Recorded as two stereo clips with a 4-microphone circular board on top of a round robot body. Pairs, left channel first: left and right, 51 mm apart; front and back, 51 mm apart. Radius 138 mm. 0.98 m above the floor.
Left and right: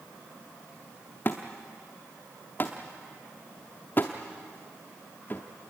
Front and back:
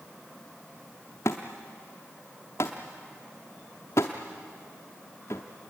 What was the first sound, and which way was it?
A thud, 35° left.